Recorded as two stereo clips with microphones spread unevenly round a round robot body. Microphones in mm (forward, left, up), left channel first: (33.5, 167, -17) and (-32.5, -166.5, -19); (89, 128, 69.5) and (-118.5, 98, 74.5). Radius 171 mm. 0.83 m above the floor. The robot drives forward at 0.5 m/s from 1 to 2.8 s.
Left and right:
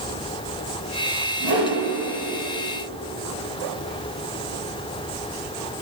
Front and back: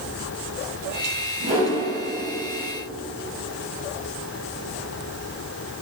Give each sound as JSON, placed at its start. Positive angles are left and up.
{"t": 1.4, "sound": "a whoosh", "azimuth_deg": -130, "distance_m": 1.0}